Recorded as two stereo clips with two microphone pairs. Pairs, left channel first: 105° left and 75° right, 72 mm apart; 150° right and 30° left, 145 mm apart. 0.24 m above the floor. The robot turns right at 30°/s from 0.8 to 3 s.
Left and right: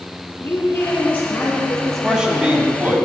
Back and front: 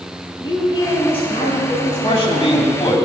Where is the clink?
No clink in this recording.